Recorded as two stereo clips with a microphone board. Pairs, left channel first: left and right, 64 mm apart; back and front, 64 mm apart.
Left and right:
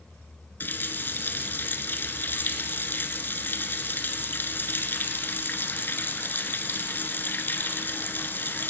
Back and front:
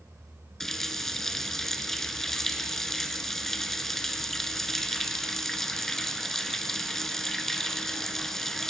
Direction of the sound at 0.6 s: 100° left.